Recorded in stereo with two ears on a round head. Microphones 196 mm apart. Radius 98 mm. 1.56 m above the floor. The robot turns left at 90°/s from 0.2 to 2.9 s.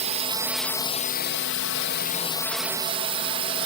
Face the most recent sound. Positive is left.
turn(degrees=-30)